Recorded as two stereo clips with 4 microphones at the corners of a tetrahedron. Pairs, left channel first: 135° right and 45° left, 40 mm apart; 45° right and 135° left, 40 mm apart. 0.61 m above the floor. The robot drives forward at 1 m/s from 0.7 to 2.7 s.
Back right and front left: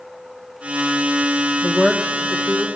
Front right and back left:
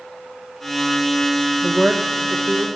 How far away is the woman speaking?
About 0.6 m.